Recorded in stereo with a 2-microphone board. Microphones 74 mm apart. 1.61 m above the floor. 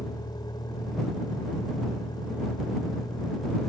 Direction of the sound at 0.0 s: 85° left.